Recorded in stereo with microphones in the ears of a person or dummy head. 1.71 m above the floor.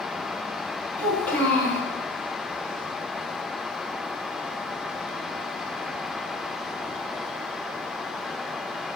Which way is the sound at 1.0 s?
10° left (ahead or behind).